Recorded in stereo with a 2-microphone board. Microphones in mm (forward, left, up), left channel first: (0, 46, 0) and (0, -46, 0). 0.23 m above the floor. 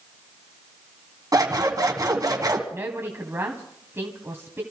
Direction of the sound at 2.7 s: 25° right (ahead or behind).